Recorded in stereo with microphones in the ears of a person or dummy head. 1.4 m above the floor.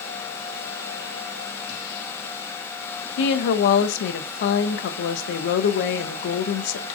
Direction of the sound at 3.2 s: 70° left (ahead or behind).